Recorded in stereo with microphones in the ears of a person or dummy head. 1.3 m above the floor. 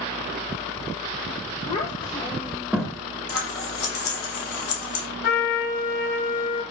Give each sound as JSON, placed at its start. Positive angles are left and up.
{"t": 1.7, "sound": "a child speaking", "side_deg": 40, "distance_m": 0.7}
{"t": 3.3, "sound": "scissors", "side_deg": 80, "distance_m": 1.3}
{"t": 5.2, "sound": "a trumpet", "side_deg": 70, "distance_m": 2.5}